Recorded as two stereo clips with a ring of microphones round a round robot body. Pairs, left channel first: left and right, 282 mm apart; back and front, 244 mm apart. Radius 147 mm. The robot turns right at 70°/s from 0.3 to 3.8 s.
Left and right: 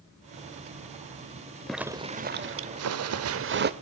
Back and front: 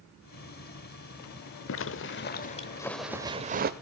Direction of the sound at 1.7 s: Straight behind.